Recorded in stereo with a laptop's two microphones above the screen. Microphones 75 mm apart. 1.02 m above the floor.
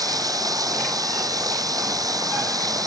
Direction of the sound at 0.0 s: 55° right (ahead or behind).